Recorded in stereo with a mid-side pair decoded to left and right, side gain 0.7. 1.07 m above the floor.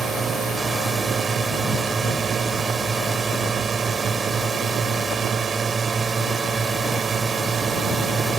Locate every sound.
0.0 s a drone: 25° right